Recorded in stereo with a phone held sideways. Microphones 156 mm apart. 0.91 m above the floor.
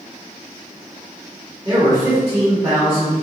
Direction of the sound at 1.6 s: 25° right (ahead or behind).